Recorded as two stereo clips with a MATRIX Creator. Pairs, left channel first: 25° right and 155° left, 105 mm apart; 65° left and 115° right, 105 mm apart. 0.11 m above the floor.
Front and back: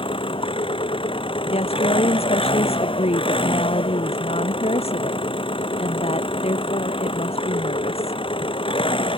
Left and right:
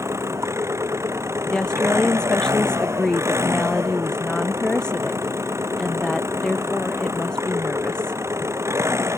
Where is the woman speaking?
15° right.